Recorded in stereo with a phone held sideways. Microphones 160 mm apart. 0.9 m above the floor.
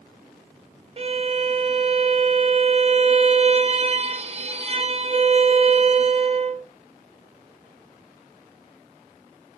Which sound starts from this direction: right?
A violin, at 1.0 s.